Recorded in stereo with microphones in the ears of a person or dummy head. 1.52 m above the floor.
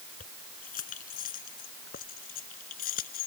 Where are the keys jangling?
45° left (ahead or behind).